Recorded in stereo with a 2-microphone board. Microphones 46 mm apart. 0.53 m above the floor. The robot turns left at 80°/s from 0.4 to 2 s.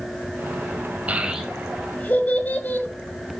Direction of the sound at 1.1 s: 30° right (ahead or behind).